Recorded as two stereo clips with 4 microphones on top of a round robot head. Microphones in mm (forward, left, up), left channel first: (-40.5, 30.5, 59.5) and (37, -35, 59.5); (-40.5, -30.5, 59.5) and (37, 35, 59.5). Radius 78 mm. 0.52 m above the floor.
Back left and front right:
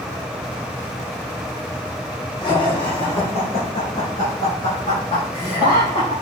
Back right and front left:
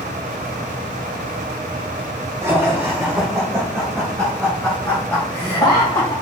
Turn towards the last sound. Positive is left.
turn(degrees=160)